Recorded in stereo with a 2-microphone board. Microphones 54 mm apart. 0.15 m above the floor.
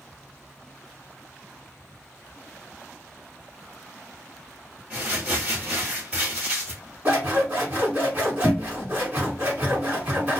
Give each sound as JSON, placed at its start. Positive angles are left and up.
{"t": 4.9, "sound": "crumpling", "side_deg": -25, "distance_m": 1.4}
{"t": 7.0, "sound": "scissors", "side_deg": -25, "distance_m": 1.5}